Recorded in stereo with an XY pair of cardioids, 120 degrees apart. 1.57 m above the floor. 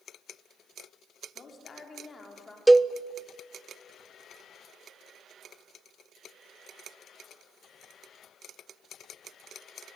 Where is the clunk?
No clunk in this recording.